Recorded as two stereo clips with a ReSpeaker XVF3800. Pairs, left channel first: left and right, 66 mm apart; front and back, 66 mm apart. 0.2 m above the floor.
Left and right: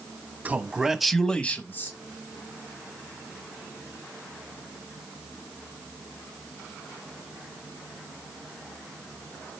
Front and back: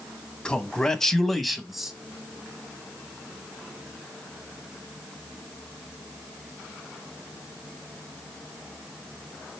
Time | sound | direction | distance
0.5 | a man speaking | 60° right | 1.2 m